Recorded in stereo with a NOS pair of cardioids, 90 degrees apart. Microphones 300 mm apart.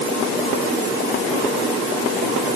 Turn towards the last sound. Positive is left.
No sound to turn to.